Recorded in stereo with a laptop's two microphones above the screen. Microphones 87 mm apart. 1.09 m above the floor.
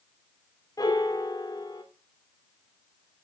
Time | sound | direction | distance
0.8 | a piano | 45° left (ahead or behind) | 3 m